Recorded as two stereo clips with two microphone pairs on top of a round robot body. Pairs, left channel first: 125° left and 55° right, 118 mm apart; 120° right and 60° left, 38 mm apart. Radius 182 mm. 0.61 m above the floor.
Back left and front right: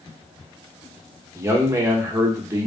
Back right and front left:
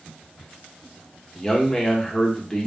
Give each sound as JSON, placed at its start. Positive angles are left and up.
{"t": 1.4, "sound": "a man speaking", "azimuth_deg": -55, "distance_m": 1.0}